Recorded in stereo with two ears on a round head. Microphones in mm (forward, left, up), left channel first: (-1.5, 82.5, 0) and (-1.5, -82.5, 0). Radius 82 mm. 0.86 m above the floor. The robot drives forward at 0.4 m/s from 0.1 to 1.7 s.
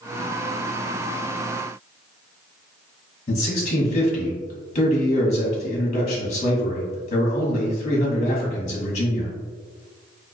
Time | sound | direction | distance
3.3 | a man speaking | 40° left (ahead or behind) | 1.1 m